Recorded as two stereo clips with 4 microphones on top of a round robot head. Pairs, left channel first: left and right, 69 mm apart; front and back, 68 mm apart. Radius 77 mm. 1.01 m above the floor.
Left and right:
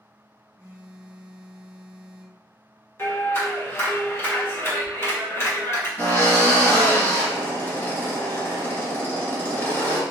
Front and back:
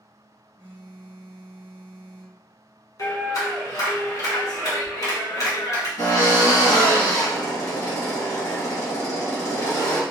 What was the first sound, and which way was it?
A phone buzzing, 25° right.